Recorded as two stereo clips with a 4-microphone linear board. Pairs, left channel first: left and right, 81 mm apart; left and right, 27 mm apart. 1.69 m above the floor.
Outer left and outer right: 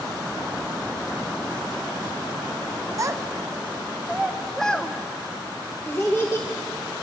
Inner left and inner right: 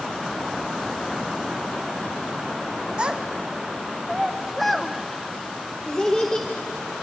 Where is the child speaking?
40° right (ahead or behind), 1.0 m; by 6.9 s 35° left (ahead or behind), 1.7 m.